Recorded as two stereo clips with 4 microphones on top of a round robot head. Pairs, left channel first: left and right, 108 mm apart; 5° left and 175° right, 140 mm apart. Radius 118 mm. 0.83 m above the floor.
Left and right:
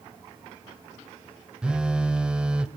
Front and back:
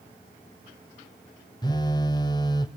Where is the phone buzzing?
20° right, 0.6 m.